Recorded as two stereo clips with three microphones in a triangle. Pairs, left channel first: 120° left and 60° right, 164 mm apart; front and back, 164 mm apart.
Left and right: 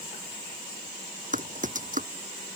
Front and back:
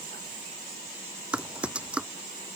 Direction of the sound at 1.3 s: 95° right.